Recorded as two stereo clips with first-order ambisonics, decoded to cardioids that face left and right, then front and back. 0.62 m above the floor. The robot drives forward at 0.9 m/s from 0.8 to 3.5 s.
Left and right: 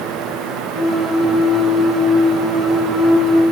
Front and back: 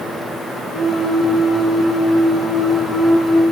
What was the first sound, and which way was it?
Only background noise.